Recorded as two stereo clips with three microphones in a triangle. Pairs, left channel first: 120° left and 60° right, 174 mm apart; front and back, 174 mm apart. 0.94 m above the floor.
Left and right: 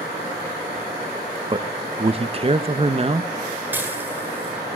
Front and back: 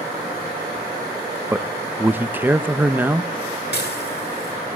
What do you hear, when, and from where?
1.5 s a man speaking: 105° right, 0.8 m
3.7 s dishes clattering: 20° left, 8.5 m